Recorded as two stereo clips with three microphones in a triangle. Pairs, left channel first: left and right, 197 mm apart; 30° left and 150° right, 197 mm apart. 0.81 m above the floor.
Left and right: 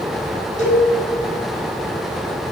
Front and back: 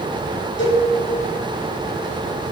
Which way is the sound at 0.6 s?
40° left.